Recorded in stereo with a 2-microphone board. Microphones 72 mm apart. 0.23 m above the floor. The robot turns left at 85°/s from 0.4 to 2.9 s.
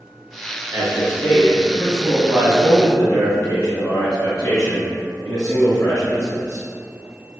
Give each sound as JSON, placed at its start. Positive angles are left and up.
{"t": 0.7, "sound": "a man speaking", "azimuth_deg": -145, "distance_m": 1.4}